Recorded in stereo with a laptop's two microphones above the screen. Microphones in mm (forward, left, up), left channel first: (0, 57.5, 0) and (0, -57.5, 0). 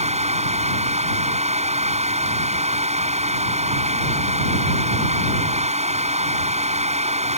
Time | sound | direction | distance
0.0 | a fan | 75° right (ahead or behind) | ?